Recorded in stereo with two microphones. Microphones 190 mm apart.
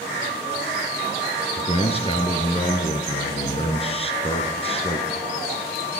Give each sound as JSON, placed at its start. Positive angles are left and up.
{"t": 1.6, "sound": "a man speaking", "side_deg": 30, "distance_m": 1.9}